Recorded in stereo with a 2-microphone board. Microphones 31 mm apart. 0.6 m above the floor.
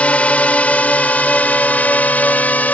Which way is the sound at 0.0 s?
50° left (ahead or behind).